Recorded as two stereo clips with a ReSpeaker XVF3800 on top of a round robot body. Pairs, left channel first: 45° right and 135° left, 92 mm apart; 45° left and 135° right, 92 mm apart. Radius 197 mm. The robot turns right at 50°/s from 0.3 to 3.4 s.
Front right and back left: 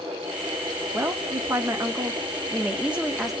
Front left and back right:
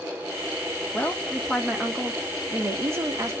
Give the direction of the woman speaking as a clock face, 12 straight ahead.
9 o'clock.